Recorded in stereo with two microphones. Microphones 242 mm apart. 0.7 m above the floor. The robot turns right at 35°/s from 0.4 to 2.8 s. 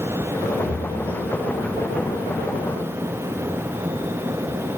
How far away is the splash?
About 1.1 m.